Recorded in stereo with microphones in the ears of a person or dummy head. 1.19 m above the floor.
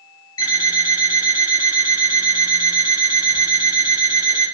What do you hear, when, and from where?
0.4 s an alarm clock: 25° left (ahead or behind), 1.8 m